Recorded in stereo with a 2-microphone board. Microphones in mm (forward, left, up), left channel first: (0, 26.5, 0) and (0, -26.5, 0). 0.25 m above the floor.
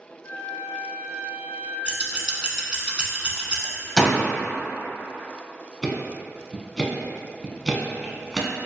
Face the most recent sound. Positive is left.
turn(degrees=0)  # may be behind; listen again after turning